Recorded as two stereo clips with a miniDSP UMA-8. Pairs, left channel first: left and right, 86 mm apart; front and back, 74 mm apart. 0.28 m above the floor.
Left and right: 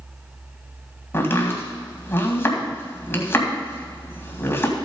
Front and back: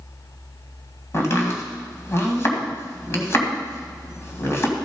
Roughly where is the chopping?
Ahead left.